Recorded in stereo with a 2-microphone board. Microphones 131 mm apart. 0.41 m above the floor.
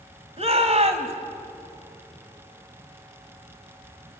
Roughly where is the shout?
Right.